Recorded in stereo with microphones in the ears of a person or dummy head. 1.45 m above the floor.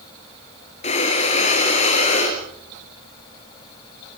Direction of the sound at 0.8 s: 35° left (ahead or behind).